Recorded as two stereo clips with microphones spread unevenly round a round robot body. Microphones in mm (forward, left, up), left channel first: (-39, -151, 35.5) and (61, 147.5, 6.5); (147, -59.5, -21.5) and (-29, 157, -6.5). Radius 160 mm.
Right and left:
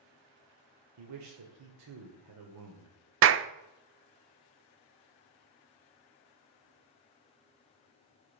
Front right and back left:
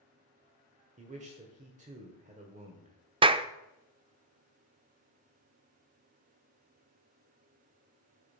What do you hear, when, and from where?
1.0 s a man speaking: 65° left, 1.9 m
3.2 s a clap: 60° left, 0.6 m